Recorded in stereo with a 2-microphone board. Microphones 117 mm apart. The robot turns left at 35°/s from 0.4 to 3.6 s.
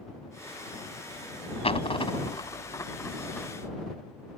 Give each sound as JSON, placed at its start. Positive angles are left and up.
{"t": 1.6, "sound": "a dropped coin", "side_deg": 55}